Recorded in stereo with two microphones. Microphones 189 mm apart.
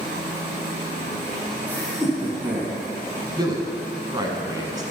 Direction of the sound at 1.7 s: 10° left (ahead or behind).